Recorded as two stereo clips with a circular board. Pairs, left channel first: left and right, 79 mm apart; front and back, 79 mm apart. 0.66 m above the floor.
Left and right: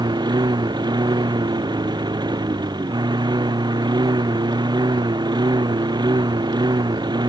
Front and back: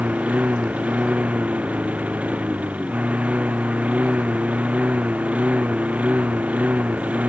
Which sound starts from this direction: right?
A lawn mower, at 0.0 s.